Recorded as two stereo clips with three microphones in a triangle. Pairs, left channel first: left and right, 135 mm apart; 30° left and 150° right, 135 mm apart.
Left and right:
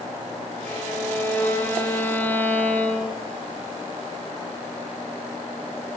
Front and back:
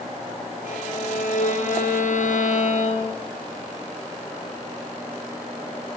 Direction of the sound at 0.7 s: 15° left.